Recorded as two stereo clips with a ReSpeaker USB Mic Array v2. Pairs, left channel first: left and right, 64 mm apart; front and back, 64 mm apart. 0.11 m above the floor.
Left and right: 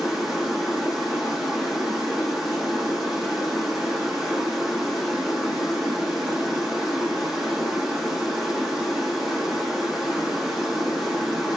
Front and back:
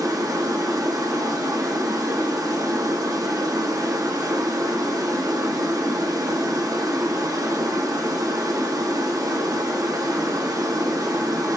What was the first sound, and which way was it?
Running water, straight behind.